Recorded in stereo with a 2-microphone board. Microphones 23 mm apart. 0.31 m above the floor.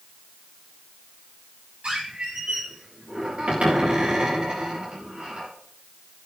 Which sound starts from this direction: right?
A squeak, at 1.8 s.